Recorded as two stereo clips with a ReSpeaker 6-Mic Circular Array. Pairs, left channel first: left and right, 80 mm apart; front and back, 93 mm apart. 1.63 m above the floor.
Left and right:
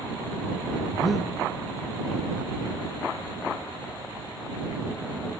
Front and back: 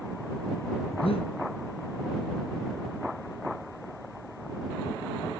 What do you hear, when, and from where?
0.9 s breathing: straight ahead